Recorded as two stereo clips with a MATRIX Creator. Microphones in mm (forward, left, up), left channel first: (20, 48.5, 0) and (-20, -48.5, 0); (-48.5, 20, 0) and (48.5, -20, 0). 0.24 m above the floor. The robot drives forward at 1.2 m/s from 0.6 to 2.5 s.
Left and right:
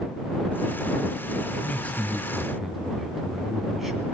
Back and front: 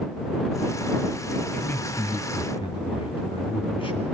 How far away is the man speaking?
About 1.0 m.